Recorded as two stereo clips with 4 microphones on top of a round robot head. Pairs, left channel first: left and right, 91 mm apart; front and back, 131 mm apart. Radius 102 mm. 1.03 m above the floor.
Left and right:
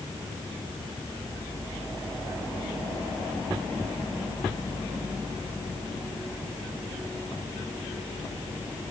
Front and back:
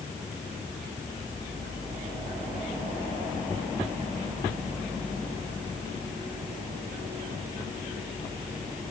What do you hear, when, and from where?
Only background noise.